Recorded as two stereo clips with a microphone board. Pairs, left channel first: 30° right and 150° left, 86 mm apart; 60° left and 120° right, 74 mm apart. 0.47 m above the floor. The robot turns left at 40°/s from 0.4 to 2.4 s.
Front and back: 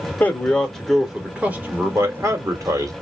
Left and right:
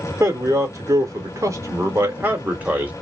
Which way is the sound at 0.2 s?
100° right.